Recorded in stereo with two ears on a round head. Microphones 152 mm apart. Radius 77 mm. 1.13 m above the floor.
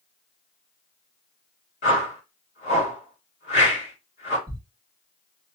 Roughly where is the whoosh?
Left.